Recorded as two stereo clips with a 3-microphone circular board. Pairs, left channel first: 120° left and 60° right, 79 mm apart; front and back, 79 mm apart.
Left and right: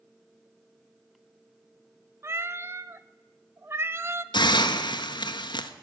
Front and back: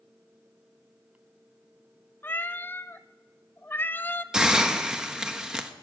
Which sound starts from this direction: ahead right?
A cat meowing, at 2.2 s.